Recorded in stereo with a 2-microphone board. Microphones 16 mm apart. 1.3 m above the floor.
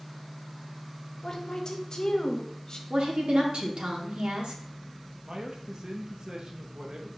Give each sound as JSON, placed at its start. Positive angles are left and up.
{"t": 1.2, "sound": "a woman speaking", "side_deg": 40, "distance_m": 0.8}
{"t": 2.9, "sound": "a woman speaking", "side_deg": -80, "distance_m": 1.0}
{"t": 5.2, "sound": "a man speaking", "side_deg": -50, "distance_m": 0.8}